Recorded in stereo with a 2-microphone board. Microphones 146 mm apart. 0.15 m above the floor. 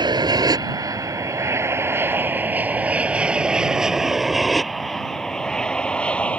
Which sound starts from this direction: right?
An aircraft, at 0.0 s.